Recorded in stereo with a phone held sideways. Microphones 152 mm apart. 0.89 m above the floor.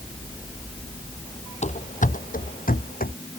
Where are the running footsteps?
50° left (ahead or behind); by 3.1 s 75° left (ahead or behind).